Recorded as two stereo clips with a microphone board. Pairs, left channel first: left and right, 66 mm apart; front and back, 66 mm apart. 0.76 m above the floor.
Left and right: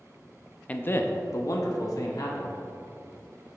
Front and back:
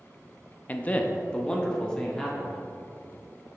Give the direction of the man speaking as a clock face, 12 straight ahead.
11 o'clock.